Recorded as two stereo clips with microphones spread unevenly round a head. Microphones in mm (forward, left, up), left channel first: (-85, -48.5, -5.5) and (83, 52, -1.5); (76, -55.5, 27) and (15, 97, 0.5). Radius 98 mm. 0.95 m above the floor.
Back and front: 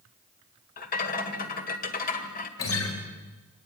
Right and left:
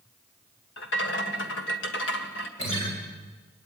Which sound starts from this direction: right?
A rattle, at 0.8 s.